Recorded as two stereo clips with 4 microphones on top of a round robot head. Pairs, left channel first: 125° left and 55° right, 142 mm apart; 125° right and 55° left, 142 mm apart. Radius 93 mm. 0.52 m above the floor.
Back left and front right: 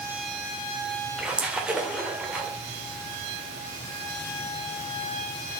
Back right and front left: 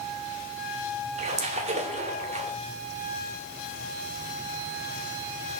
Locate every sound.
1.2 s a splash: 25° left, 2.5 m